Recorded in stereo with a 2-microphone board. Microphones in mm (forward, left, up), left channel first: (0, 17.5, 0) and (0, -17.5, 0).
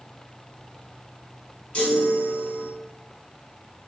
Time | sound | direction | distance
1.7 | a chime | 40° left (ahead or behind) | 1.1 m